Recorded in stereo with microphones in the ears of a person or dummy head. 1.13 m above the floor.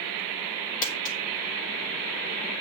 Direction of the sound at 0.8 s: 45° left (ahead or behind).